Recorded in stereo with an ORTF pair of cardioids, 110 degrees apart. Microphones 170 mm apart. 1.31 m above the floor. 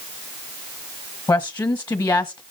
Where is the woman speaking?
20° left, 1.4 m.